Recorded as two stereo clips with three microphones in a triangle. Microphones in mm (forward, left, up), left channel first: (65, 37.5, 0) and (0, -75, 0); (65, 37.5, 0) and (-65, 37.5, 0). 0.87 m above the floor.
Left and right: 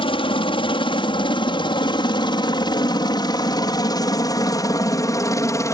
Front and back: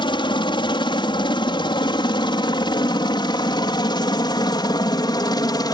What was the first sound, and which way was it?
A helicopter, 35° left.